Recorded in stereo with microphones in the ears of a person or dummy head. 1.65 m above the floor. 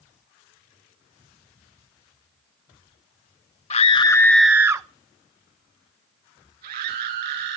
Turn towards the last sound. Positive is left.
turn(degrees=-55)  # may be behind; listen again after turning